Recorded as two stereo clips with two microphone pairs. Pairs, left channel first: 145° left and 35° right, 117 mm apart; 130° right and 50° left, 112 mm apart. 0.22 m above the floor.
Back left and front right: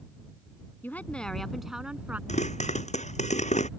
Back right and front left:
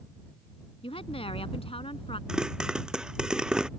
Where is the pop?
135° left.